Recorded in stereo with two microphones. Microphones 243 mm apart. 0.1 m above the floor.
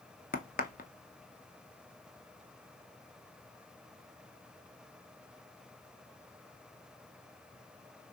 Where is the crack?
35° left (ahead or behind), 0.5 m.